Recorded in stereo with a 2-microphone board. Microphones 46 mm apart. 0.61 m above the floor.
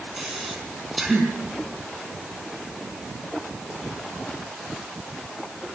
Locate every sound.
0.2 s breathing: 5° right (ahead or behind), 4.5 m